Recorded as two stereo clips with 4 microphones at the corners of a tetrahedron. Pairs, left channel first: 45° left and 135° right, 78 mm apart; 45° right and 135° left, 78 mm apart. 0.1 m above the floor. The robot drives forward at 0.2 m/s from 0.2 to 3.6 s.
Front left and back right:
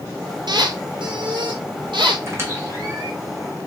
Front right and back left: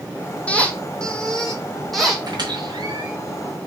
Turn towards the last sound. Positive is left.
turn(degrees=170)